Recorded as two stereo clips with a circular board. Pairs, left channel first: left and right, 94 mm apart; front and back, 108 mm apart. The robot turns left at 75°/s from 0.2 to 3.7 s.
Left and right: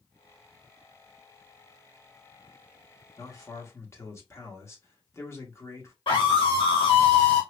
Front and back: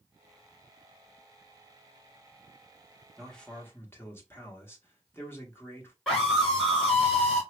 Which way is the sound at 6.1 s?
90° left.